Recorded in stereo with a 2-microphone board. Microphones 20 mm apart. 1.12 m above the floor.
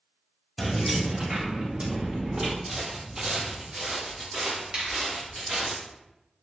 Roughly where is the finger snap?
Right.